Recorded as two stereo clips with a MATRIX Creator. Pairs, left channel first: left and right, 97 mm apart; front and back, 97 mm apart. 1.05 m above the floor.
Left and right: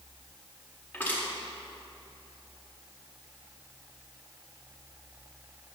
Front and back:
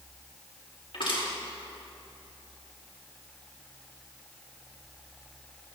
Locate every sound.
0.9 s crushing: 20° left, 4 m